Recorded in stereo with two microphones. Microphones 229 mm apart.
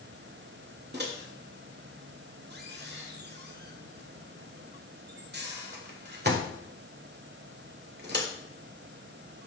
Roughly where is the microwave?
Right.